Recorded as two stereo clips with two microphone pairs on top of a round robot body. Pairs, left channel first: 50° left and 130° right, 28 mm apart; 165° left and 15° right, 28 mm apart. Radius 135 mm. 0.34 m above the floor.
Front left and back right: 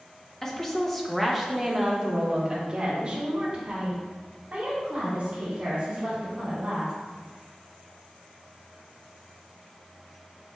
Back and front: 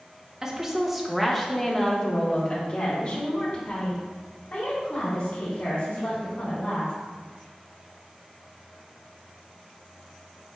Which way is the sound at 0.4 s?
20° left.